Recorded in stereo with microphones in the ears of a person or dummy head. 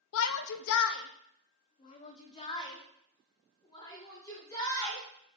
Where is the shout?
75° left (ahead or behind), 0.7 m; by 5.0 s 15° left (ahead or behind), 3.5 m.